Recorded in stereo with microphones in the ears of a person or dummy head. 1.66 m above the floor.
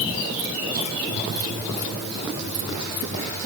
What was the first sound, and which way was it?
Only background noise.